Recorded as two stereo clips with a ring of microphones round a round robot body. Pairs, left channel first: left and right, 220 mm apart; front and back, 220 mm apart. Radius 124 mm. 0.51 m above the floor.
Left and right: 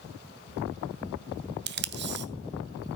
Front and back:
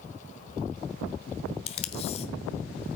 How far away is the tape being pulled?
About 0.8 m.